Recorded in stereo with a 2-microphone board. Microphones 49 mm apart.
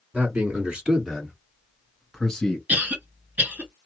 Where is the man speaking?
30° right (ahead or behind), 2.0 m; by 2.6 s 10° left (ahead or behind), 2.0 m.